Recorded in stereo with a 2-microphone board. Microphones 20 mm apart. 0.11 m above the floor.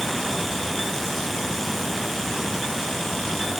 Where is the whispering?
I don't hear whispering.